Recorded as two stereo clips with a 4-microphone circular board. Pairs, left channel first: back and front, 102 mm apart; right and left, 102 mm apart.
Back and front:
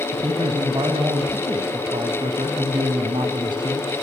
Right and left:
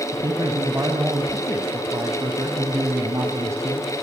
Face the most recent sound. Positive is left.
turn(degrees=35)